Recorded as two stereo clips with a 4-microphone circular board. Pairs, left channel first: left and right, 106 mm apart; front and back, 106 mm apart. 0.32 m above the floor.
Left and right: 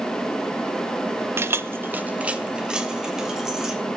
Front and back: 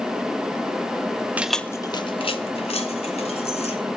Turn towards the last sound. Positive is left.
turn(degrees=-5)